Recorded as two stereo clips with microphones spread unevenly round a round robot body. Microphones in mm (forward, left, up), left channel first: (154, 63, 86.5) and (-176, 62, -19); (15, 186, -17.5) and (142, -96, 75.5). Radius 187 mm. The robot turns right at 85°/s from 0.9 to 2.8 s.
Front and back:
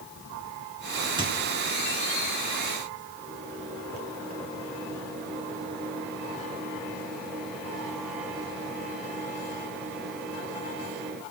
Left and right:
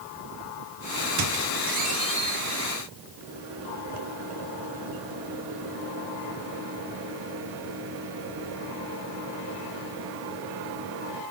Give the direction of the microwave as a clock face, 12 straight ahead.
3 o'clock.